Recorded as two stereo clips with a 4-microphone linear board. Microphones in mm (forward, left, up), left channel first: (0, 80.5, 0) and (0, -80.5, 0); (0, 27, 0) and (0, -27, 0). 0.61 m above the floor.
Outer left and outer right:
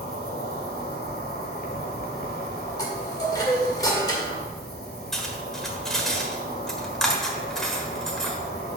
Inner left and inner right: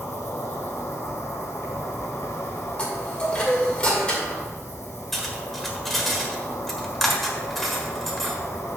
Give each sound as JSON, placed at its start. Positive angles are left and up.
{"t": 0.0, "sound": "an insect", "side_deg": 75, "distance_m": 1.6}
{"t": 2.8, "sound": "a chime", "side_deg": 25, "distance_m": 2.0}
{"t": 5.1, "sound": "cutlery clinking", "side_deg": 5, "distance_m": 1.3}